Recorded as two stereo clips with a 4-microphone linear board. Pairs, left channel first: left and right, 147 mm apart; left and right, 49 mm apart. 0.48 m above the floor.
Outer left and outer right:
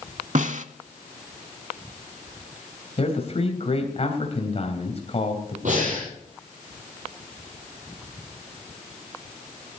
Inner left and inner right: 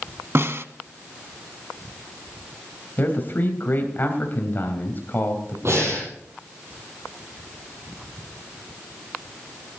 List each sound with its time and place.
0.3 s a snare drum: 60° right (ahead or behind), 0.6 m
3.0 s a man speaking: 45° left (ahead or behind), 3 m
5.7 s breathing: 60° right (ahead or behind), 9 m